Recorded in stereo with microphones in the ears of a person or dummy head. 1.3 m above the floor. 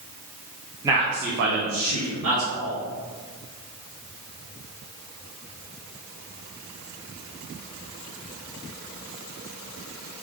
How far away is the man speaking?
About 0.7 m.